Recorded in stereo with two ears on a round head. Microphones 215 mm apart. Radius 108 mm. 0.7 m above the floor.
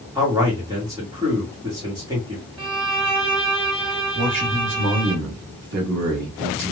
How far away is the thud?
I don't hear a thud.